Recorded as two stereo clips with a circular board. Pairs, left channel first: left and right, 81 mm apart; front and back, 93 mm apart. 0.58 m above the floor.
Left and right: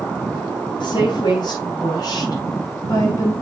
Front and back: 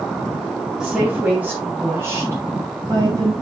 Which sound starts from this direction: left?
A woman speaking, at 0.8 s.